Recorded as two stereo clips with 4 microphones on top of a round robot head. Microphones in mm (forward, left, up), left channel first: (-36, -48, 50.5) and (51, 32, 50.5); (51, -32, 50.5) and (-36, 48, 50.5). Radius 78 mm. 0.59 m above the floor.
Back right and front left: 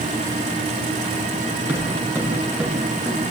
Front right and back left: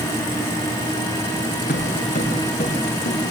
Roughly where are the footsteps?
Ahead right.